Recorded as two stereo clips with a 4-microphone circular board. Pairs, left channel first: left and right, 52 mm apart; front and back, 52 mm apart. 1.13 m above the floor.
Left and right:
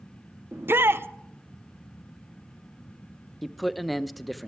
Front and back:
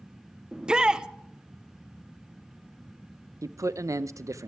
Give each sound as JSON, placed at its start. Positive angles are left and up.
{"t": 0.5, "sound": "a shout", "azimuth_deg": -110, "distance_m": 0.5}
{"t": 3.4, "sound": "a man speaking", "azimuth_deg": 180, "distance_m": 0.5}